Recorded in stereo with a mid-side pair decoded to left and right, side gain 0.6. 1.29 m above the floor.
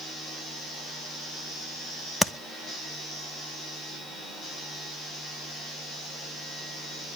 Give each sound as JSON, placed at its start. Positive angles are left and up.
{"t": 2.2, "sound": "tapping", "azimuth_deg": 0, "distance_m": 0.8}